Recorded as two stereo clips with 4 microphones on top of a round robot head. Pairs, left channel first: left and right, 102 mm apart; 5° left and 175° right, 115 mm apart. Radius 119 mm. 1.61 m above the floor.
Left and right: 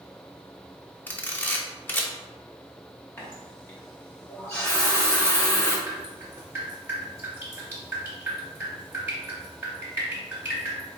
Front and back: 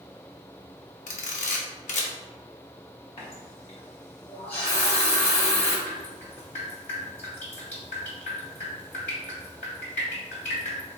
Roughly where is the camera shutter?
Ahead.